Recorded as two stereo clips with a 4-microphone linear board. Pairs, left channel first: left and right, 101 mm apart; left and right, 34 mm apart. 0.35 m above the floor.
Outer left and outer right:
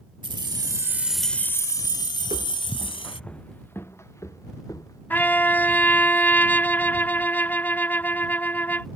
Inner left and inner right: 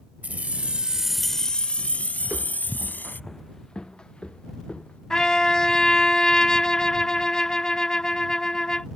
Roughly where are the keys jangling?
Right.